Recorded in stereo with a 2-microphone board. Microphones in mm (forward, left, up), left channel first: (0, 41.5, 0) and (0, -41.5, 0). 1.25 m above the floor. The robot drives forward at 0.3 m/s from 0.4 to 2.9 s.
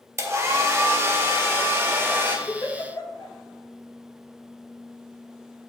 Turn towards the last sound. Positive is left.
turn(degrees=40)  # may be behind; listen again after turning